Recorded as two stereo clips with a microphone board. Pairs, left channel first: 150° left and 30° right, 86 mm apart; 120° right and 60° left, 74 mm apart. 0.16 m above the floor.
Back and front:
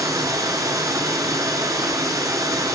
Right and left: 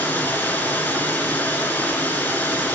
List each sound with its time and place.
0.0 s running water: 60° right, 1.1 m